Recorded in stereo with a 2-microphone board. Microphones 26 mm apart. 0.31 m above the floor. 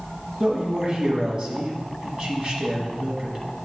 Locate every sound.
0.4 s a man speaking: 40° right (ahead or behind), 2 m